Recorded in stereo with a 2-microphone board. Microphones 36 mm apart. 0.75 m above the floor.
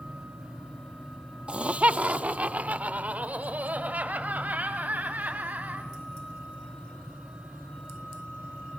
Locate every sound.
1.5 s laughter: 30° right (ahead or behind), 1.1 m; by 5.9 s 45° right (ahead or behind), 6.5 m